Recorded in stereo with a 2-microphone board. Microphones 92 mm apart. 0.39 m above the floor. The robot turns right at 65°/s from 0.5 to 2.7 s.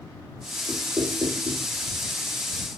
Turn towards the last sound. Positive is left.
turn(degrees=-15)